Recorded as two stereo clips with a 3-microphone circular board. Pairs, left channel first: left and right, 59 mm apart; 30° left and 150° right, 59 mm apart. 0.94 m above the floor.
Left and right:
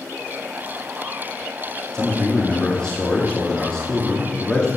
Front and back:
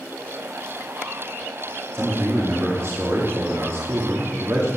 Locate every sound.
1.9 s a man speaking: 170° left, 2 m